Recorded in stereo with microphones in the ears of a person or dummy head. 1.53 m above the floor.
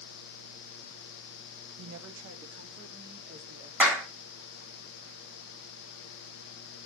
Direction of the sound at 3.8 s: 10° right (ahead or behind).